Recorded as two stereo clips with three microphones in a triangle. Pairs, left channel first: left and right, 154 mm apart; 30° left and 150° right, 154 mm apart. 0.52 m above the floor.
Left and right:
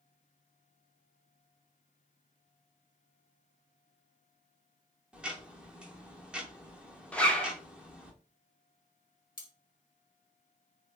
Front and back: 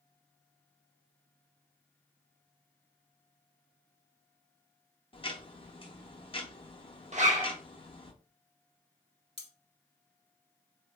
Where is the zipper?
175° left, 0.6 m.